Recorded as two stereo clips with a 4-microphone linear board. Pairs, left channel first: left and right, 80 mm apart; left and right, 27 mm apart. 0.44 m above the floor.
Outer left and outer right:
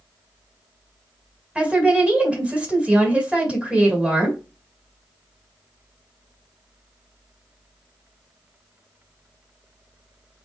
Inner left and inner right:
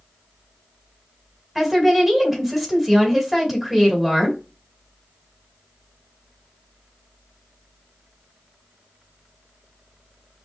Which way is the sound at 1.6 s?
15° right (ahead or behind).